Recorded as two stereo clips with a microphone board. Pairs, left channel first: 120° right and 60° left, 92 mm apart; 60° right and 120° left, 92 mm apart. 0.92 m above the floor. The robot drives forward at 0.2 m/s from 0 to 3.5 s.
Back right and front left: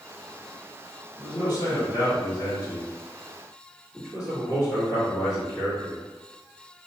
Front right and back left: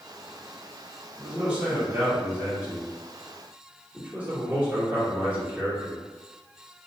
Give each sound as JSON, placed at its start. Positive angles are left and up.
{"t": 1.2, "sound": "a man speaking", "azimuth_deg": -160, "distance_m": 1.3}